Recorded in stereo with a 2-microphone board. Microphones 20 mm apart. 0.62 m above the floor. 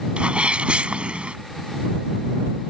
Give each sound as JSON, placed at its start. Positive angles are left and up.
{"t": 0.2, "sound": "a sneeze", "side_deg": -70}